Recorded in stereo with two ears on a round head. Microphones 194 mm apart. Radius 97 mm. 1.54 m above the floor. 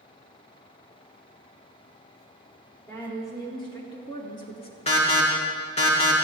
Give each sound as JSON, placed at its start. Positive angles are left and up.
{"t": 2.9, "sound": "a woman speaking", "side_deg": 15, "distance_m": 4.0}
{"t": 4.9, "sound": "an alarm", "side_deg": 30, "distance_m": 2.5}